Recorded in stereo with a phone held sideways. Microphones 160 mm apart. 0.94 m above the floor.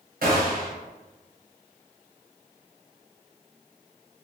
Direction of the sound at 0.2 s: 65° right (ahead or behind).